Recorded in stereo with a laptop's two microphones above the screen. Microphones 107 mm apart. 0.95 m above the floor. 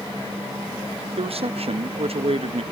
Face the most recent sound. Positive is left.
turn(degrees=-65)  # may be behind; listen again after turning